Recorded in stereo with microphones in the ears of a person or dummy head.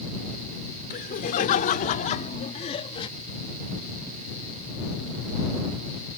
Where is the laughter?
45° left (ahead or behind); by 3.1 s 25° left (ahead or behind).